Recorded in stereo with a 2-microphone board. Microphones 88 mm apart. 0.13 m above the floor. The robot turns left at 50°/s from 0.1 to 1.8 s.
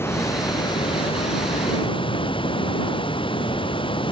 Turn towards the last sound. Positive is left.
turn(degrees=70)